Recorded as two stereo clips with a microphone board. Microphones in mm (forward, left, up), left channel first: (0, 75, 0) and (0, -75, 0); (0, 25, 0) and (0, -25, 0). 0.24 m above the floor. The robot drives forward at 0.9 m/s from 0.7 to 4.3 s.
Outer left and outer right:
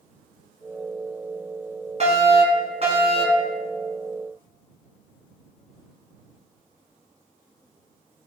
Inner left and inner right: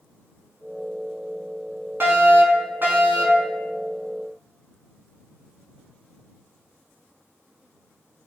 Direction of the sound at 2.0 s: 50° right (ahead or behind).